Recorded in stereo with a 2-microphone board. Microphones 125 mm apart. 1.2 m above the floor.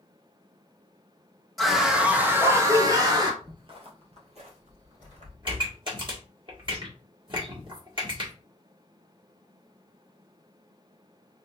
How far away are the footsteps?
About 1.5 m.